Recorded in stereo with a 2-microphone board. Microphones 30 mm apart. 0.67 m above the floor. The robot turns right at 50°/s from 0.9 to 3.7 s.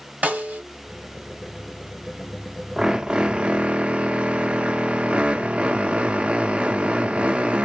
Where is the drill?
145° right, 0.5 m; by 7.7 s 100° right, 0.5 m.